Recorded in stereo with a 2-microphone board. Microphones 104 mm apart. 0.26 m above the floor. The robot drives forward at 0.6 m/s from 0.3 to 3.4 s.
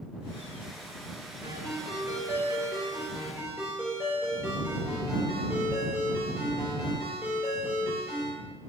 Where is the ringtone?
30° right (ahead or behind), 2.5 m; by 8.3 s 20° right (ahead or behind), 3.5 m.